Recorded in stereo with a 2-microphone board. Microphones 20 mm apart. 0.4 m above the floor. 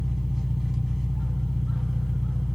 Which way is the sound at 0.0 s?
20° right (ahead or behind).